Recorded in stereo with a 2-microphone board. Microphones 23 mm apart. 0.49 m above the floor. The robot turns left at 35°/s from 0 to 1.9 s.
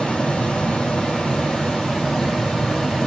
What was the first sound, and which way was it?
Running water, 110° left.